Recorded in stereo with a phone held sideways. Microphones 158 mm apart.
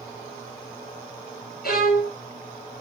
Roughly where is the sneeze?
No sneeze in this recording.